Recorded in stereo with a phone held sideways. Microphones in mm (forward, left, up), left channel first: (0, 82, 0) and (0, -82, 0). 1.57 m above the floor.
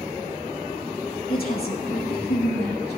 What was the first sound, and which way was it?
A woman speaking, 65° left (ahead or behind).